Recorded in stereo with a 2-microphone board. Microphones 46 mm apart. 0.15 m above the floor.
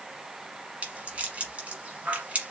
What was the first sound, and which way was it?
A rattle, 25° right (ahead or behind).